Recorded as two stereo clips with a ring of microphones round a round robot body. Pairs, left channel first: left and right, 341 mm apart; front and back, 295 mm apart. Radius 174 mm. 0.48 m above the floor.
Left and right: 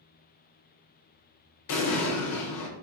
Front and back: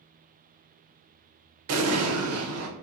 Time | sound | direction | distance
1.7 | an explosion | 140° left | 0.6 m